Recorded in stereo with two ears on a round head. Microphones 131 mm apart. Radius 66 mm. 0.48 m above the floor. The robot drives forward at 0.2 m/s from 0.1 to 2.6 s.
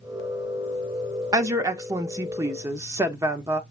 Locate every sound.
1.3 s a woman speaking: 20° right (ahead or behind), 0.7 m